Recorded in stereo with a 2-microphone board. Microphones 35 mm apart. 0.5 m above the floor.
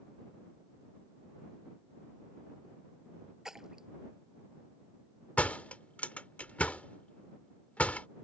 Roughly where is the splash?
Centre.